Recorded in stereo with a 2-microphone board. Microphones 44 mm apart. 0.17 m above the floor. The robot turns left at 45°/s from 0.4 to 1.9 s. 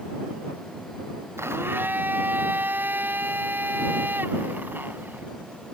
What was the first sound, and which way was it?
A blender, 70° right (ahead or behind).